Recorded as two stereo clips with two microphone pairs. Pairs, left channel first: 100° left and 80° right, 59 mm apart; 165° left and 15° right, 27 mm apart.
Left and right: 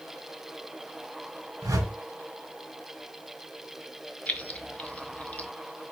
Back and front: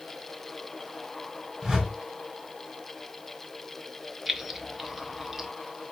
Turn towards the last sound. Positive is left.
turn(degrees=50)